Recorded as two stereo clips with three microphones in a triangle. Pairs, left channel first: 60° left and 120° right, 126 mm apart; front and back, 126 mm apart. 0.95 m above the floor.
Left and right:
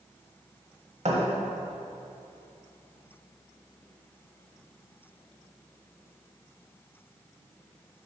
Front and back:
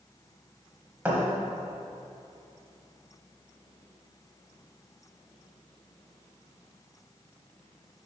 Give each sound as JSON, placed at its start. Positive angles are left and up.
{"t": 1.1, "sound": "a thud", "azimuth_deg": -110, "distance_m": 1.2}